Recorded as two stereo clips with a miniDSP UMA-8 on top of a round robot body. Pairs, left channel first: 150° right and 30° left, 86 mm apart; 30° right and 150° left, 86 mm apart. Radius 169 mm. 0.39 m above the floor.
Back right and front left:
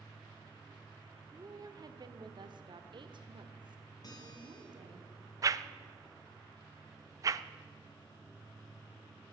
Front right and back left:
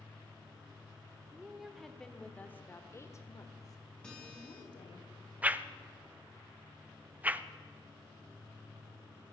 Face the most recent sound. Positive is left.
turn(degrees=80)